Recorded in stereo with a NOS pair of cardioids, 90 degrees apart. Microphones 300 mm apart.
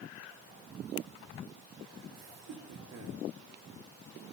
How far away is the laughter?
About 5.5 m.